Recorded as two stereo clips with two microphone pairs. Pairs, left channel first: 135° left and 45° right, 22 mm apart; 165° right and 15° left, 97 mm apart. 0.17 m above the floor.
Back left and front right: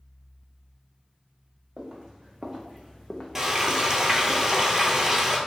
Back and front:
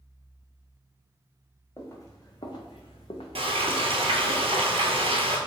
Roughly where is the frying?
Ahead.